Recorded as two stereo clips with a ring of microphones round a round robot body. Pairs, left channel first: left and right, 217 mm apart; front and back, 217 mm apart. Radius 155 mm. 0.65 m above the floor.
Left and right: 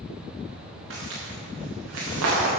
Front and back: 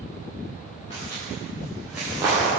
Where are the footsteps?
75° right, 3.5 m; by 2.5 s 105° right, 4.5 m.